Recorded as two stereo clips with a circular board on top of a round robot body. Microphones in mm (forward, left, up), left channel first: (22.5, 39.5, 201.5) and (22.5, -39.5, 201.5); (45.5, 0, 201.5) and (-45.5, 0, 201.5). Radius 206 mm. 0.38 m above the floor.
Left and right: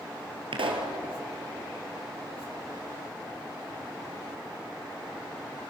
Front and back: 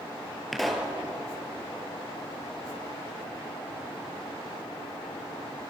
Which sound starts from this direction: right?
A pop, at 0.5 s.